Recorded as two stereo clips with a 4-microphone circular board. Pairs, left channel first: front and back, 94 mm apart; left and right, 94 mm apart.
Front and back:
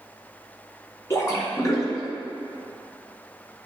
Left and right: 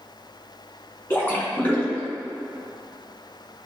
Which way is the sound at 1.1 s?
35° left.